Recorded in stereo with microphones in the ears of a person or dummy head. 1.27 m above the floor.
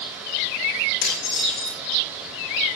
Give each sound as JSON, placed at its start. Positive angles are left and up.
{"t": 1.0, "sound": "dishes clattering", "side_deg": 60, "distance_m": 3.5}